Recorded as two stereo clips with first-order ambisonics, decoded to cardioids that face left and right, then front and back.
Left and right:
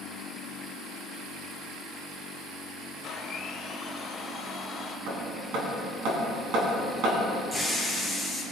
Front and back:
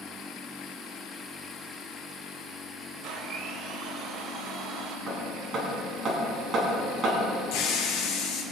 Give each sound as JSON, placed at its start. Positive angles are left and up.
{"t": 3.0, "sound": "a blender", "azimuth_deg": 155, "distance_m": 1.5}
{"t": 5.1, "sound": "hammering", "azimuth_deg": -120, "distance_m": 4.0}
{"t": 7.5, "sound": "a hiss", "azimuth_deg": -15, "distance_m": 3.0}